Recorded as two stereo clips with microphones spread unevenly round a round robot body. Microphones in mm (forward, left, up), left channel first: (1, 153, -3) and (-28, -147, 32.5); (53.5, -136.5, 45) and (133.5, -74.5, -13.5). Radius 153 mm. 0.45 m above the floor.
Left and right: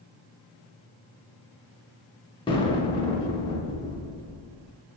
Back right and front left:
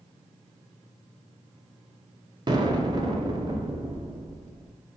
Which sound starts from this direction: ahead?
An explosion, at 2.5 s.